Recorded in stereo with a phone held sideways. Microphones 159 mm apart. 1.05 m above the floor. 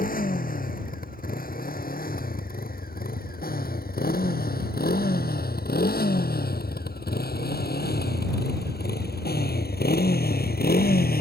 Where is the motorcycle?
65° left (ahead or behind); by 11.2 s 75° left (ahead or behind).